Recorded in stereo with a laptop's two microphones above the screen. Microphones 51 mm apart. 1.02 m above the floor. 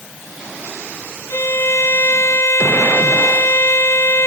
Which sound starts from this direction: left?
A violin, at 1.3 s.